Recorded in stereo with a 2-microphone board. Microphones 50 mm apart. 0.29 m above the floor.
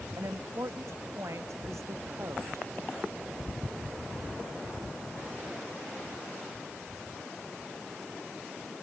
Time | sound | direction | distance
0.2 | a woman speaking | 75° right (ahead or behind) | ?